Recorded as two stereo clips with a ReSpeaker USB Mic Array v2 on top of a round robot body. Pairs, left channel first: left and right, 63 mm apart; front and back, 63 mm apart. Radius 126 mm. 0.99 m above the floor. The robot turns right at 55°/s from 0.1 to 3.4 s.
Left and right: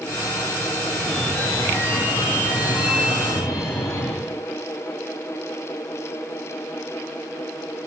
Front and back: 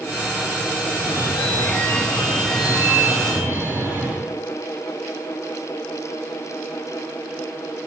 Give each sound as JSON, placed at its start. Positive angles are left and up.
{"t": 0.8, "sound": "a phone ringing", "azimuth_deg": -15, "distance_m": 3.5}